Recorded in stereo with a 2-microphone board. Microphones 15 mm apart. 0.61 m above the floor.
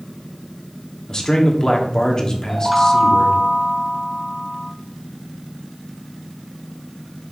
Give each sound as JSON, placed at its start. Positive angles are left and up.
{"t": 1.1, "sound": "a man speaking", "side_deg": 40, "distance_m": 1.4}
{"t": 2.5, "sound": "a chime", "side_deg": 0, "distance_m": 0.7}